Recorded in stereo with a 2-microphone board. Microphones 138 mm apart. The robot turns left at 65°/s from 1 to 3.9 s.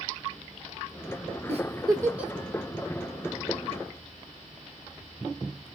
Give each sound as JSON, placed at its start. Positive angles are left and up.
{"t": 1.5, "sound": "a giggle", "side_deg": -55, "distance_m": 1.2}